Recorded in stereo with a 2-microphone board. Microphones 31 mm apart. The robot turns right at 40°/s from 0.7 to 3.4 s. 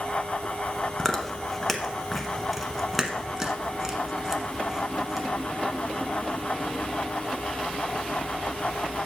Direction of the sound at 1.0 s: 15° left (ahead or behind).